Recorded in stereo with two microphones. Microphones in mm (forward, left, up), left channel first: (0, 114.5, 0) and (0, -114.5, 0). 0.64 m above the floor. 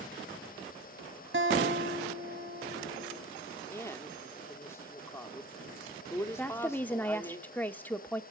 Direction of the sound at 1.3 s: 60° right (ahead or behind).